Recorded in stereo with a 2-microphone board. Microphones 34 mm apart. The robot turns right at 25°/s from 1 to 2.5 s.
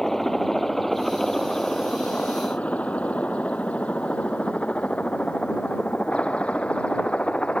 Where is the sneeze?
No sneeze in this recording.